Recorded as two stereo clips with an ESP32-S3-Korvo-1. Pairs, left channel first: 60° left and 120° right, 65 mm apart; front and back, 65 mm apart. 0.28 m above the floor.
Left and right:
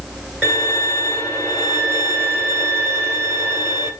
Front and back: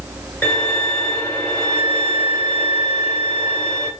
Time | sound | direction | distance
0.4 | a violin | straight ahead | 1.7 m